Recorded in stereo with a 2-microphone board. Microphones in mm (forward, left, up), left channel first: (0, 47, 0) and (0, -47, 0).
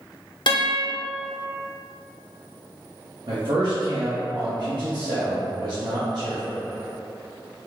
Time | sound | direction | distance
0.5 | a guitar | 60° left (ahead or behind) | 0.5 m
3.3 | a man speaking | 60° right (ahead or behind) | 0.8 m